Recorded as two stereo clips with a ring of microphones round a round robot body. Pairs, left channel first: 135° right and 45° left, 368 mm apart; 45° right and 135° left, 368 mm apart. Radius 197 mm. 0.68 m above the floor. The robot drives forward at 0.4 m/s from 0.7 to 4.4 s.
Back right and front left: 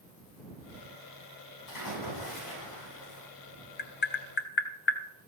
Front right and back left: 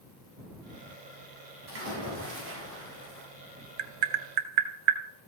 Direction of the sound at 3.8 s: 160° left.